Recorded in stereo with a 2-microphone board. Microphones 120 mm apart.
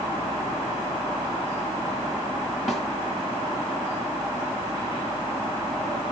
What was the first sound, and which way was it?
A snare drum, 5° right (ahead or behind).